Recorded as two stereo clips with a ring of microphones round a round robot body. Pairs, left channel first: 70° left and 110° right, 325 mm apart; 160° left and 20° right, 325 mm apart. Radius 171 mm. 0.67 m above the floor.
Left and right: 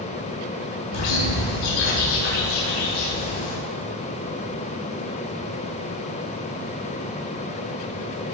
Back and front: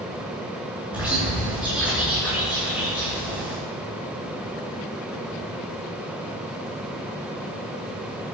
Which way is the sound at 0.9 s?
65° left.